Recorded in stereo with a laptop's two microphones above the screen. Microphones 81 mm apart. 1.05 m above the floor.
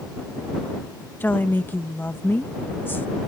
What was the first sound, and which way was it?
A woman speaking, 25° left (ahead or behind).